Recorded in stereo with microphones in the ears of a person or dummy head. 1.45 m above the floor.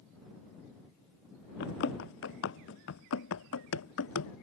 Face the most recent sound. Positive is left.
turn(degrees=75)  # may be behind; listen again after turning